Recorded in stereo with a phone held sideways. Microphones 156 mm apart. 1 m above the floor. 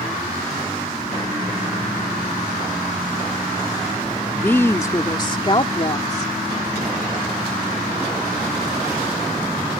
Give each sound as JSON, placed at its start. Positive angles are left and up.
{"t": 4.4, "sound": "a woman speaking", "side_deg": 10}